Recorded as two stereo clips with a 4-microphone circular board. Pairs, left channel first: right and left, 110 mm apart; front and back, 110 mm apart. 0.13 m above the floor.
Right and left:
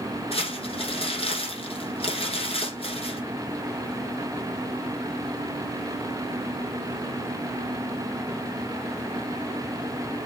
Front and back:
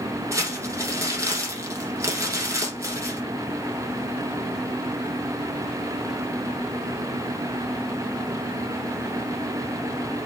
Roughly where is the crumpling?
Behind right.